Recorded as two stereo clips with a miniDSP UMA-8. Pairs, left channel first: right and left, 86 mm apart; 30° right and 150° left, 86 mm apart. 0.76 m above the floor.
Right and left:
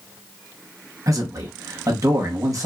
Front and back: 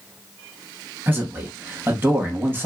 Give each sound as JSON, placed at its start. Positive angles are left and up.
{"t": 1.1, "sound": "a man speaking", "azimuth_deg": 105, "distance_m": 0.8}